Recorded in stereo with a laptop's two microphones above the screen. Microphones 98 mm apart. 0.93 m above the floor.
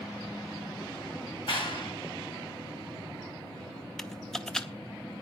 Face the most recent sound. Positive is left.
turn(degrees=5)  # may be behind; listen again after turning